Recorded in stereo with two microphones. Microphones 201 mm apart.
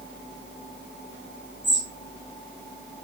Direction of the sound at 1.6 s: 65° left (ahead or behind).